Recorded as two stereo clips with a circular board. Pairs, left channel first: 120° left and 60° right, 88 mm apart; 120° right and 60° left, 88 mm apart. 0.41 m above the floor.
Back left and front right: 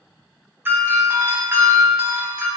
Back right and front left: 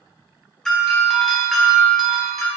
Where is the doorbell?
40° right, 1.3 m.